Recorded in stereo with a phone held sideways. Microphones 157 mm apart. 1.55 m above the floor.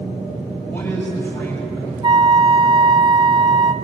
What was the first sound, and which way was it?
A man speaking, 10° left (ahead or behind).